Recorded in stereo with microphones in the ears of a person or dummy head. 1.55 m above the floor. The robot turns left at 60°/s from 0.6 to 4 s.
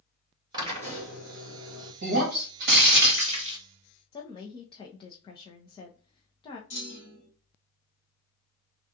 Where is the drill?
30° right, 2 m; by 1.9 s 105° right, 2 m.